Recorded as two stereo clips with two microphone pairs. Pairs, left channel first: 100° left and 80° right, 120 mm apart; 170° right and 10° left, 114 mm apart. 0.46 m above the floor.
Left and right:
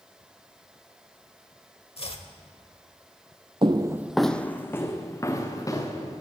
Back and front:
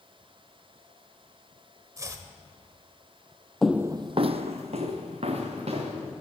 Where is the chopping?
70° left, 1.0 m.